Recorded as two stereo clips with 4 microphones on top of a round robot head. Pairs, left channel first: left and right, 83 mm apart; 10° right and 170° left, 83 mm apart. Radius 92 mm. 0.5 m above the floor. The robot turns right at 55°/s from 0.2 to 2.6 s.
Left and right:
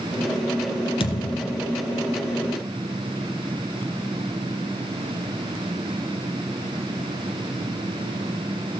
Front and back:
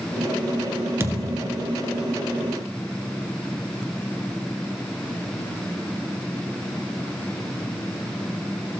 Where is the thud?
110° left, 1.3 m; by 1.7 s 145° left, 1.3 m.